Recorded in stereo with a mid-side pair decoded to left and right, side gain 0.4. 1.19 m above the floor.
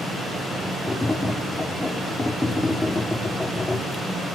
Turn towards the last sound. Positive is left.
turn(degrees=20)